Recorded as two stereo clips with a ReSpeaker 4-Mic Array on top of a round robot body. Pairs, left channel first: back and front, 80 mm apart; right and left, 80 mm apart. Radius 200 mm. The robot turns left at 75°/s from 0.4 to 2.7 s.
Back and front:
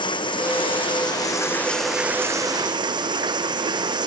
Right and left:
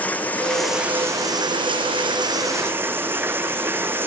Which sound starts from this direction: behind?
Running water, at 0.0 s.